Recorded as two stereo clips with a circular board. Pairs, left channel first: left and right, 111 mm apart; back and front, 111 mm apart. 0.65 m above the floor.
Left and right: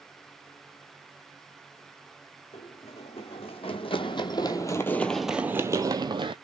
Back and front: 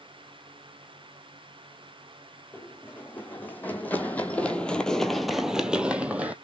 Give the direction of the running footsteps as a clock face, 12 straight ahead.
8 o'clock.